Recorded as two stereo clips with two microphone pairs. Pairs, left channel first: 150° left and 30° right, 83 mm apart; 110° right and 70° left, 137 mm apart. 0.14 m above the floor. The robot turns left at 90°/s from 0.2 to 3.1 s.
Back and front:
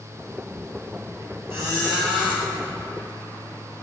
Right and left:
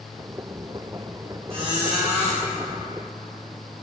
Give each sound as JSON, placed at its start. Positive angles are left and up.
{"t": 1.5, "sound": "a squeak", "azimuth_deg": 30, "distance_m": 3.0}